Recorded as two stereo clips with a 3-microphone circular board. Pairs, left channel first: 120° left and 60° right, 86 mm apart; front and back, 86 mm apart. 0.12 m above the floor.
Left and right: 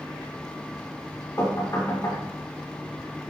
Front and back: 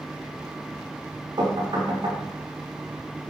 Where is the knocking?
165° left, 6.5 m.